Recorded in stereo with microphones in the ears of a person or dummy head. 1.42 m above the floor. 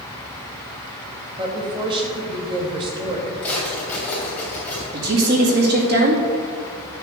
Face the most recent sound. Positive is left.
turn(degrees=-50)  # may be behind; listen again after turning